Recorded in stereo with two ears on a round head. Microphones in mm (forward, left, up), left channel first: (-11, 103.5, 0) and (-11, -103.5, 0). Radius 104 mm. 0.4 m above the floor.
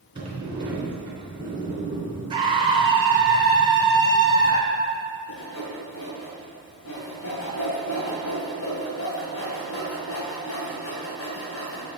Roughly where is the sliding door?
Right.